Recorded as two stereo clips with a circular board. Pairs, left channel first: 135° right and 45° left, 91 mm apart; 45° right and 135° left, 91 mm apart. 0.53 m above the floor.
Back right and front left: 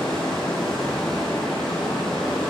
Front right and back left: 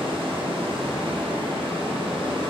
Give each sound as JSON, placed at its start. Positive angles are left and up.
{"t": 0.0, "sound": "running water", "azimuth_deg": 140, "distance_m": 4.5}